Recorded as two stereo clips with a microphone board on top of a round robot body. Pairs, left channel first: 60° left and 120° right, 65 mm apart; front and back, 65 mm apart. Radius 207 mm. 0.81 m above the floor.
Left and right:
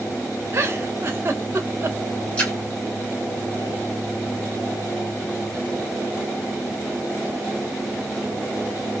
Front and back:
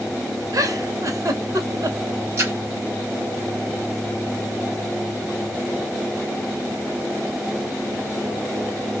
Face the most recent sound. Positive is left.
turn(degrees=130)